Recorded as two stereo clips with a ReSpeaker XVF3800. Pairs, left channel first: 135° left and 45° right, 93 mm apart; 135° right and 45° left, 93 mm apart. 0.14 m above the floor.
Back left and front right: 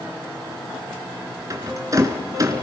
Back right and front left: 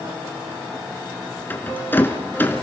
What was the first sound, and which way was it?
A rattle, 75° right.